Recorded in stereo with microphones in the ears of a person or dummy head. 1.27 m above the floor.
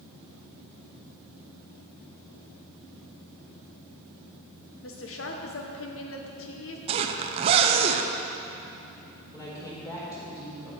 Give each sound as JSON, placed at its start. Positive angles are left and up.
{"t": 4.8, "sound": "a woman speaking", "side_deg": 60, "distance_m": 0.9}
{"t": 6.9, "sound": "a zipper", "side_deg": -25, "distance_m": 0.6}
{"t": 9.3, "sound": "a woman speaking", "side_deg": 25, "distance_m": 3.5}